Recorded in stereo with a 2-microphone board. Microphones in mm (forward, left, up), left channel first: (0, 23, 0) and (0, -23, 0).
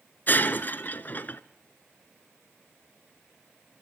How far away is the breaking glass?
About 0.8 m.